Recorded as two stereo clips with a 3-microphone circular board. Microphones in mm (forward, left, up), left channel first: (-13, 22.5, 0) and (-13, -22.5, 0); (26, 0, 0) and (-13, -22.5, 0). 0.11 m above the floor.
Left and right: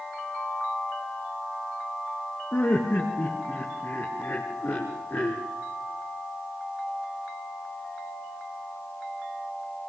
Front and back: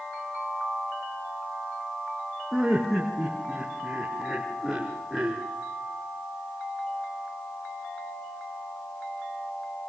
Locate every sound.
2.5 s laughter: 130° left, 5 m